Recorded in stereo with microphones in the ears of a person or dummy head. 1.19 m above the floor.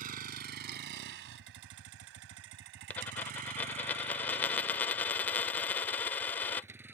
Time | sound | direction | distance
0.0 | a vehicle | 50° right (ahead or behind) | ?
2.9 | a dropped coin | 5° left (ahead or behind) | ?